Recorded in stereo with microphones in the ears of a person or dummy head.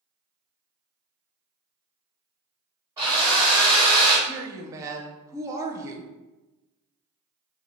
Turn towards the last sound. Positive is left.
turn(degrees=-15)  # may be behind; listen again after turning